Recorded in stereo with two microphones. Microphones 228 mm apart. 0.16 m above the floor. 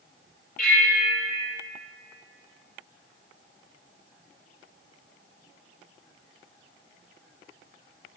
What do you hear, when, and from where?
0.6 s a bell: 40° left (ahead or behind), 4 m